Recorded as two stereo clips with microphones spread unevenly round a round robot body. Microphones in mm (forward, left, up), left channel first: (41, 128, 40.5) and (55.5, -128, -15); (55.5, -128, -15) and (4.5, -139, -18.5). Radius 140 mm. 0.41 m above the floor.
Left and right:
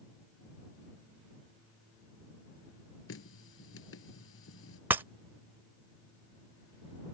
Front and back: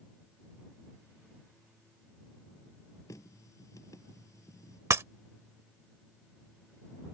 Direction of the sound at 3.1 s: 55° left.